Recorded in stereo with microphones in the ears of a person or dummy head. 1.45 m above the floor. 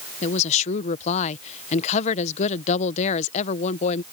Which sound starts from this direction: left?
A woman speaking, at 0.2 s.